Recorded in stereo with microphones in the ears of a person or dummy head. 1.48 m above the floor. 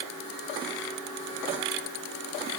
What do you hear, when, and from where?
Only background noise.